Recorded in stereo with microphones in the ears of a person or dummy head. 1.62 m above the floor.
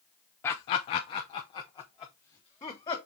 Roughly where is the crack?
I don't hear a crack.